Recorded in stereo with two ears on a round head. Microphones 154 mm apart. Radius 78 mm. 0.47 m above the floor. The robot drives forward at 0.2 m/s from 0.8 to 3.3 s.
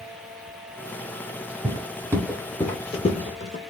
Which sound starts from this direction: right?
Footsteps, at 1.6 s.